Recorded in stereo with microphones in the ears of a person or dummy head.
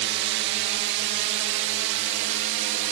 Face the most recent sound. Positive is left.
turn(degrees=-65)  # may be behind; listen again after turning